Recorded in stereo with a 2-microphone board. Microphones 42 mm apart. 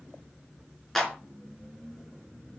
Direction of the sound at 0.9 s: 5° left (ahead or behind).